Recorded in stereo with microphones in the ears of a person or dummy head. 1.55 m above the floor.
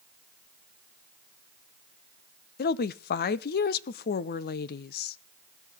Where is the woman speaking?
55° left (ahead or behind), 0.6 m.